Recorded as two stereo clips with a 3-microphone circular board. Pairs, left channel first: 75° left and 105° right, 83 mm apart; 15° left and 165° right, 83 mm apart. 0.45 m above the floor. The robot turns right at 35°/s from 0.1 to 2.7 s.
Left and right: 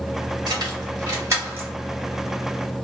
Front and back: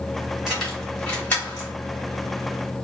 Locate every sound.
0.5 s keys jangling: 80° right, 1.9 m; by 1.7 s 40° right, 1.9 m